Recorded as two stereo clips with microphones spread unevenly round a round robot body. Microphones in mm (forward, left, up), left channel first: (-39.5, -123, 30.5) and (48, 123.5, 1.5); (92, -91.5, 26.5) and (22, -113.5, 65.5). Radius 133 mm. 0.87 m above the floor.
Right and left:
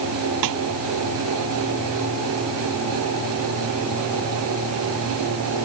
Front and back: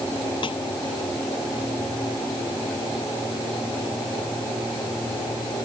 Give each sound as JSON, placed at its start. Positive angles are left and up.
{"t": 0.4, "sound": "a snare drum", "azimuth_deg": 55}